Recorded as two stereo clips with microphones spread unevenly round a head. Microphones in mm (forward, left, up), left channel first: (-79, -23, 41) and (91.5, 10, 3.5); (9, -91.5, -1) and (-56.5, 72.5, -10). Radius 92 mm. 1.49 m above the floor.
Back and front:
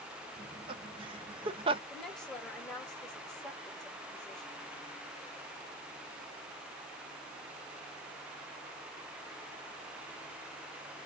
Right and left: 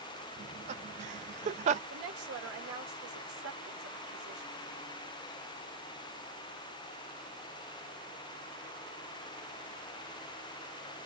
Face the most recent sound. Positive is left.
turn(degrees=105)